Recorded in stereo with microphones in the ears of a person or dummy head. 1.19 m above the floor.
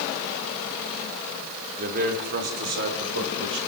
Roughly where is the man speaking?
Right.